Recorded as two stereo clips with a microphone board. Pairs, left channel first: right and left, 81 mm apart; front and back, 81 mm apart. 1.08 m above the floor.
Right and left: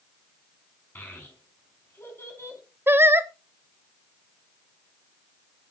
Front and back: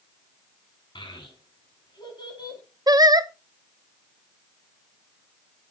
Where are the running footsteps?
I don't hear running footsteps.